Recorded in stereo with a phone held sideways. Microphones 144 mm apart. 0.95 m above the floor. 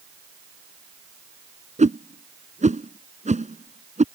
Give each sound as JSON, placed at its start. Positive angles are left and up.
{"t": 1.8, "sound": "a whoosh", "side_deg": -60}